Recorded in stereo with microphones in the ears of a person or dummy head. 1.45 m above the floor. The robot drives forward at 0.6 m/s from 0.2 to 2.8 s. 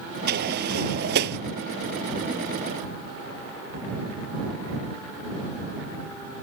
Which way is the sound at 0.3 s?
55° right (ahead or behind).